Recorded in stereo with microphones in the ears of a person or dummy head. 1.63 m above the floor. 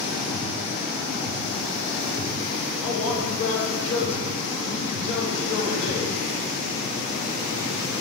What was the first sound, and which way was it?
A man speaking, 40° left (ahead or behind).